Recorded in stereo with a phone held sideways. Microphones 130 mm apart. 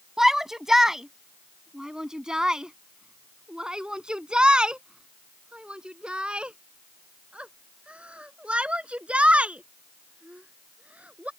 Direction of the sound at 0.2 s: 5° right (ahead or behind).